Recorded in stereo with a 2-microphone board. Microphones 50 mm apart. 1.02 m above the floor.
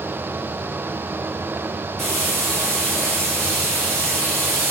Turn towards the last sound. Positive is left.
turn(degrees=10)  # may be behind; listen again after turning